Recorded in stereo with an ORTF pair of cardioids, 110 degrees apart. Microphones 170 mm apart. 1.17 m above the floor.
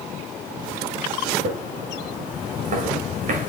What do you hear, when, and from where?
1.4 s footsteps: 50° right, 6 m